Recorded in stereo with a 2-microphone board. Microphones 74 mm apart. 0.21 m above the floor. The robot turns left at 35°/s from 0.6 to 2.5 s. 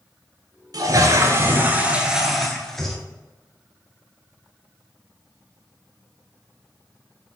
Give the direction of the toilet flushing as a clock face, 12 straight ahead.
4 o'clock.